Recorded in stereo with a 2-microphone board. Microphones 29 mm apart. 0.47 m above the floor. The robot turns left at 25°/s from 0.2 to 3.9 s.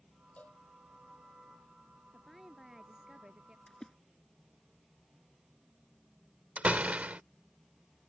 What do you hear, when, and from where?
0.4 s a cowbell: 55° left (ahead or behind); by 0.6 s 65° left (ahead or behind)
2.1 s a woman speaking: straight ahead; by 3.6 s 35° right
3.7 s a splash: 20° left (ahead or behind); by 3.9 s 25° left (ahead or behind)
6.6 s a door slam: 55° right (ahead or behind)